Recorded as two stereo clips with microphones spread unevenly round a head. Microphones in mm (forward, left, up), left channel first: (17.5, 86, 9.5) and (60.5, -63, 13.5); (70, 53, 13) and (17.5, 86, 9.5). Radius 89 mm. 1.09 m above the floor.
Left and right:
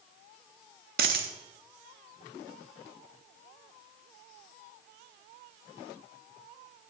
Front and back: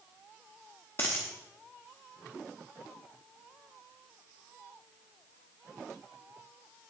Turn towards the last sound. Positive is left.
turn(degrees=-100)